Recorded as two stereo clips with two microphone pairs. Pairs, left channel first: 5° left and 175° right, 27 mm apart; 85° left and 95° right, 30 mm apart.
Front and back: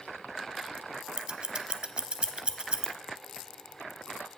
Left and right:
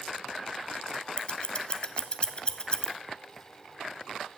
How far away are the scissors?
About 0.6 m.